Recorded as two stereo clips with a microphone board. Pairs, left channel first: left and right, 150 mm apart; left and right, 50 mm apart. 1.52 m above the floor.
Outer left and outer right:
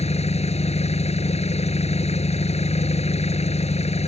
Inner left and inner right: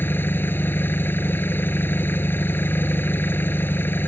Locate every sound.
0.0 s an engine running: 45° left (ahead or behind)